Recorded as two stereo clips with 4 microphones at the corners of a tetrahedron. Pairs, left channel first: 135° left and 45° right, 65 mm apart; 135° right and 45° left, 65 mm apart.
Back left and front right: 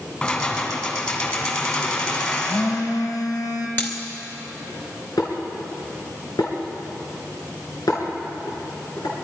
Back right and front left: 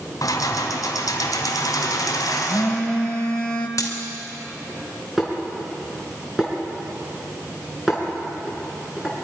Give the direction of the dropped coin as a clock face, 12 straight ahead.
6 o'clock.